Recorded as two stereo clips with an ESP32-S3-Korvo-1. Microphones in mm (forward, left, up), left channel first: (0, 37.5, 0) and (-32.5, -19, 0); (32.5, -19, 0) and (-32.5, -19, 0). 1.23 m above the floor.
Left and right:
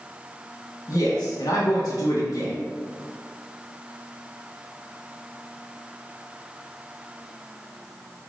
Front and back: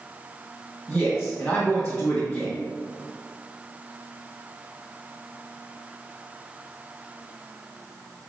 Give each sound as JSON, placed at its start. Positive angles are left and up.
{"t": 0.9, "sound": "a man speaking", "azimuth_deg": 85, "distance_m": 1.5}